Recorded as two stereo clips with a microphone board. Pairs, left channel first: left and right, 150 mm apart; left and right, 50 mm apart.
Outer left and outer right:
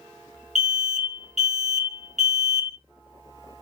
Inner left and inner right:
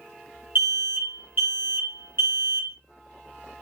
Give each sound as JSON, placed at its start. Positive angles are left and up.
{"t": 0.6, "sound": "an alarm", "side_deg": -50, "distance_m": 1.5}